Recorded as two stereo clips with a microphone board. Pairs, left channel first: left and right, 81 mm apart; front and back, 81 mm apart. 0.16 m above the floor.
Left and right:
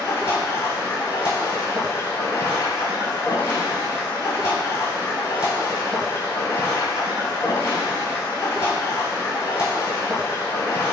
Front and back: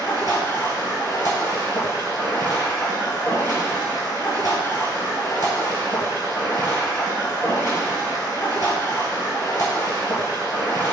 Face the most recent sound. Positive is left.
turn(degrees=35)